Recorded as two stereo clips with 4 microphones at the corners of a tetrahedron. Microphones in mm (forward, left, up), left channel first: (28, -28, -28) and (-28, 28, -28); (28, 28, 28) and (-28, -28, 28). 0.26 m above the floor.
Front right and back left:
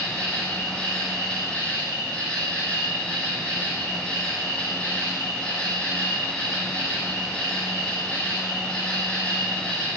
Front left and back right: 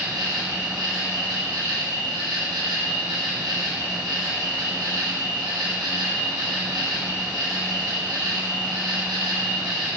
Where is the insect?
120° right, 2 m.